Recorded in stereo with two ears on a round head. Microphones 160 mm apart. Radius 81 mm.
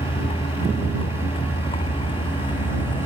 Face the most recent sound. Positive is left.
turn(degrees=25)  # may be behind; listen again after turning